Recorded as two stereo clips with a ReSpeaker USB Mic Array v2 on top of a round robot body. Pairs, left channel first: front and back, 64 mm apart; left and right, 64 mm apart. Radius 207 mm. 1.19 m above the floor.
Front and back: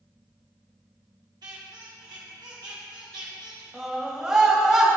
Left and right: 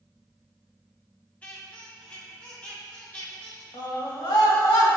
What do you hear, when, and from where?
1.4 s a squeak: 160° left, 1.1 m
3.7 s a scream: 100° left, 1.7 m